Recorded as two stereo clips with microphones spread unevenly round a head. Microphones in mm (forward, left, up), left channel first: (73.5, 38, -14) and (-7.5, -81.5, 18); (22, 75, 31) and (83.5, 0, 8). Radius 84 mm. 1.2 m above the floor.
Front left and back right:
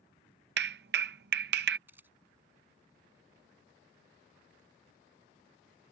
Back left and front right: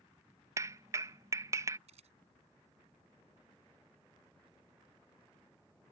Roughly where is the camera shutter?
Ahead right.